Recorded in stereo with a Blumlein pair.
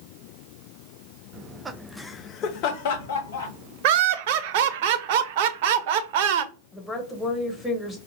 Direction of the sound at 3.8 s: 50° right.